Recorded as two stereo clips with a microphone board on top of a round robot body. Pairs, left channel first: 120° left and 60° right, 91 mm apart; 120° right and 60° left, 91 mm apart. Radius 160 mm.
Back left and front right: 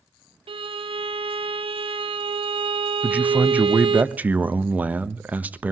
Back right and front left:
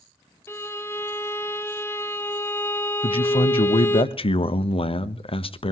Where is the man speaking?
135° right, 1.3 m.